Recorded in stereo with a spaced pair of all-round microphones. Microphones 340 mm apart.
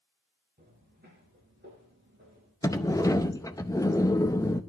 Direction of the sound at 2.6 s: 10° left (ahead or behind).